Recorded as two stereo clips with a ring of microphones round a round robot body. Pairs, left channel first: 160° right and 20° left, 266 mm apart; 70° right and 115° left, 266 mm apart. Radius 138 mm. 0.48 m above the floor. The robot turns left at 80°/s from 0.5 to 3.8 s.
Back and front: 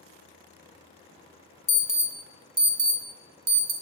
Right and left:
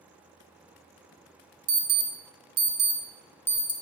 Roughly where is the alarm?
Behind left.